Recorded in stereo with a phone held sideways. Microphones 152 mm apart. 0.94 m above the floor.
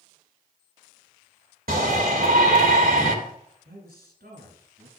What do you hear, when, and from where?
1.7 s a shout: 70° right (ahead or behind), 2.5 m
3.6 s a man speaking: 80° right, 6 m